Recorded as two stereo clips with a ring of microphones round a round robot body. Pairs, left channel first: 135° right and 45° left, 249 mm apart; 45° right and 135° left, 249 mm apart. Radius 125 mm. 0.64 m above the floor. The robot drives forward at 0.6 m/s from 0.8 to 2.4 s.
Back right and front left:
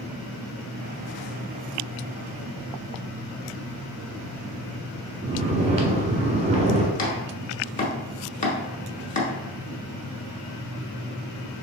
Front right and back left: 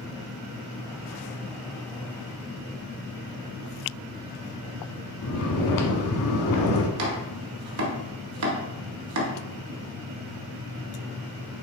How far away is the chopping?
About 1.0 m.